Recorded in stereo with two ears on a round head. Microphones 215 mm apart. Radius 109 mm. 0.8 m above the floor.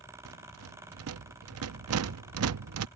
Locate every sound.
0.2 s a rattle: 70° right (ahead or behind)